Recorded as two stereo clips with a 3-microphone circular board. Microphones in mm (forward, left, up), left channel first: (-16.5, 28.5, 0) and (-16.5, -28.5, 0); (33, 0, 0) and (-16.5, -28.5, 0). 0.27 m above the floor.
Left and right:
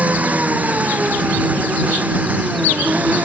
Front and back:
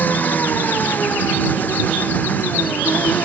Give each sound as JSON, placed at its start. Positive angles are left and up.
{"t": 0.0, "sound": "an engine running", "azimuth_deg": -30}